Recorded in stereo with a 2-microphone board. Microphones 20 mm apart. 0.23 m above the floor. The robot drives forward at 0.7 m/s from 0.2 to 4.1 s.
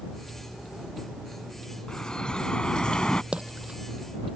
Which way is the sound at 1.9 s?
45° left (ahead or behind).